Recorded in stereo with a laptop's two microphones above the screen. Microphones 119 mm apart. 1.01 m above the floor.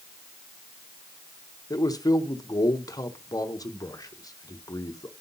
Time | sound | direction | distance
1.7 | a man speaking | 30° left (ahead or behind) | 0.7 m